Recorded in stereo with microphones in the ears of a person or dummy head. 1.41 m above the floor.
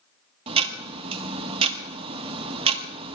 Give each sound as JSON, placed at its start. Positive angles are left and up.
{"t": 0.5, "sound": "ticking", "side_deg": -35, "distance_m": 1.4}